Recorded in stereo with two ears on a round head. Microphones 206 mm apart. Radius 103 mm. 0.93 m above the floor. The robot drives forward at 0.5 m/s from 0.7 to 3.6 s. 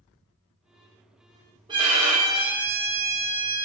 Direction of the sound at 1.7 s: 20° right (ahead or behind).